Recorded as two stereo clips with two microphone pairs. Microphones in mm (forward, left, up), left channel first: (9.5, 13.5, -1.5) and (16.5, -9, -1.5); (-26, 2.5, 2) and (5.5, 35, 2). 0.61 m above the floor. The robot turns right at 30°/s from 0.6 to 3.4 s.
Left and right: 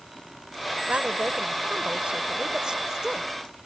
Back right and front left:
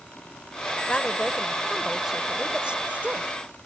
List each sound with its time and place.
0.9 s a woman speaking: 70° right; by 3.6 s 5° left